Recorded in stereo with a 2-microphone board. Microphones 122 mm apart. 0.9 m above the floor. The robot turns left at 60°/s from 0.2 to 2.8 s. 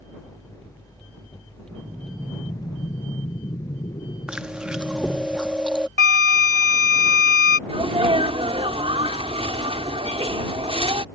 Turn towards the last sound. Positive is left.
turn(degrees=-50)  # may be behind; listen again after turning